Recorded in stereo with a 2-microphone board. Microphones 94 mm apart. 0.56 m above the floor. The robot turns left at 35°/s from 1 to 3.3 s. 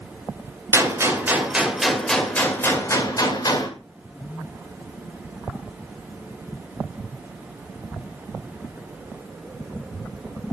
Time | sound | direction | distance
0.7 | a gunshot | 150° right | 2 m